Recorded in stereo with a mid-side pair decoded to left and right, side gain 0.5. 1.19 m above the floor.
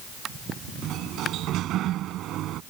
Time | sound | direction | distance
0.8 | a sliding door | 70° right | ?